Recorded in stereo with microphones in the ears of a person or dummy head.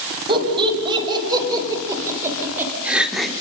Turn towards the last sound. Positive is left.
turn(degrees=-5)  # may be behind; listen again after turning